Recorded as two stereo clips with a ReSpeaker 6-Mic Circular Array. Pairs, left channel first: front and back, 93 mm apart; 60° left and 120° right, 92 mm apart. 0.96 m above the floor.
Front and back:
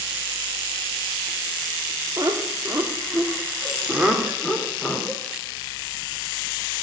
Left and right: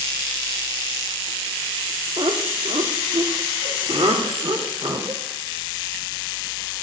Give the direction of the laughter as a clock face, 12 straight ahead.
4 o'clock.